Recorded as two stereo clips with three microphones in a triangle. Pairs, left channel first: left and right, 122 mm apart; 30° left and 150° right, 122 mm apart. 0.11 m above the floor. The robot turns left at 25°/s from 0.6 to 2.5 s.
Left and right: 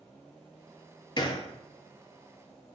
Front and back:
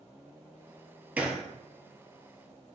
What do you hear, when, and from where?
1.2 s a gunshot: 135° left, 0.5 m; by 1.5 s 125° left, 0.5 m